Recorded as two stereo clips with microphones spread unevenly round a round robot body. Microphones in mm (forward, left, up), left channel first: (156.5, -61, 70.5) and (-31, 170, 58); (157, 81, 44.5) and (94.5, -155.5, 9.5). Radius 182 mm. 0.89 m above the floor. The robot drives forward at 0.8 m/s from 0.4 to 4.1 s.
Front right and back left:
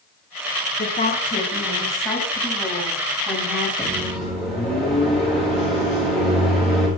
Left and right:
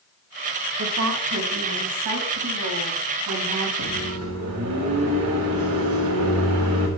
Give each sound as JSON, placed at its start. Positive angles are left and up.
{"t": 0.8, "sound": "a woman speaking", "azimuth_deg": -110, "distance_m": 2.5}
{"t": 3.8, "sound": "a microwave", "azimuth_deg": -140, "distance_m": 3.5}